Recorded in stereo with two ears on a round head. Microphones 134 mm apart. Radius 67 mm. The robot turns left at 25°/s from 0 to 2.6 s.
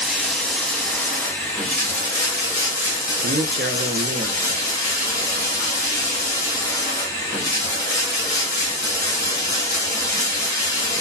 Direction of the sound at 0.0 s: 5° right (ahead or behind).